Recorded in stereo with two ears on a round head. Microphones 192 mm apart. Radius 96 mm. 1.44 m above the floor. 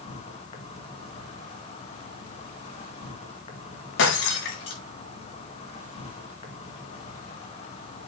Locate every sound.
0.0 s an insect: 30° left (ahead or behind), 2.5 m
4.0 s breaking glass: 60° left (ahead or behind), 5 m